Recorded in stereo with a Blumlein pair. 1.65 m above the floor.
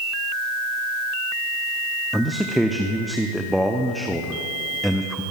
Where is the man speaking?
Straight ahead, 0.7 m.